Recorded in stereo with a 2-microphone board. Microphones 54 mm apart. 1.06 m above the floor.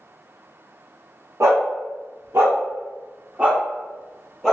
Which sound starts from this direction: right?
A dog barking, at 1.4 s.